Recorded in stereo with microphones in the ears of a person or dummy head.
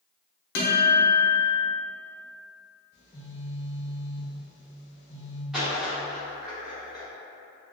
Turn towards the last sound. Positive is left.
turn(degrees=-5)  # may be behind; listen again after turning